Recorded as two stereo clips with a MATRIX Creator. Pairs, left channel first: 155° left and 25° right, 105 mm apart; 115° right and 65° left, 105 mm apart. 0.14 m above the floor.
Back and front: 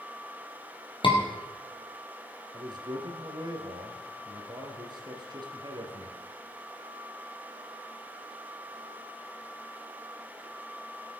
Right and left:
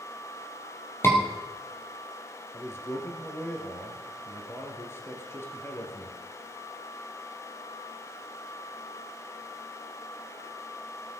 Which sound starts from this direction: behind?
A scream, at 1.0 s.